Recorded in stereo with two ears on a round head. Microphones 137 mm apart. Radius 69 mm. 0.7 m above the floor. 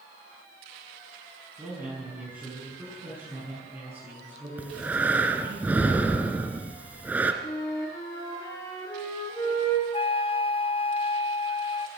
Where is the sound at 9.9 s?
35° left (ahead or behind), 0.9 m.